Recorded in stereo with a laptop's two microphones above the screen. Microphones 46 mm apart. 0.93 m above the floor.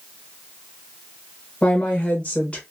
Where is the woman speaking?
25° left (ahead or behind), 0.7 m.